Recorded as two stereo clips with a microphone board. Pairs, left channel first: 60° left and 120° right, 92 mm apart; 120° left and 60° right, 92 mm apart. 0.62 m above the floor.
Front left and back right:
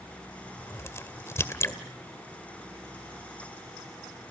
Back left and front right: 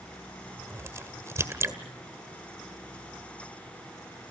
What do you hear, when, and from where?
0.6 s a crack: straight ahead, 1.9 m